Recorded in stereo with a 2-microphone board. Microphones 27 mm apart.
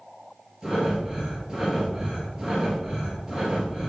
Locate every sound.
0.6 s breathing: 30° right (ahead or behind), 2 m